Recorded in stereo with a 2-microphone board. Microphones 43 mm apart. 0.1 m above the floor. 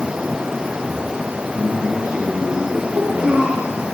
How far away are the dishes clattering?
No dishes clattering in this recording.